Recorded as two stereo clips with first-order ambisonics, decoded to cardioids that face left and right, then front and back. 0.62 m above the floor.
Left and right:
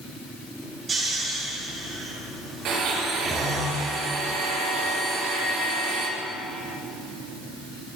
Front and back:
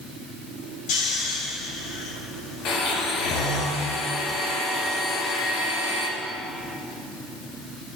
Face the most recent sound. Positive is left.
turn(degrees=-45)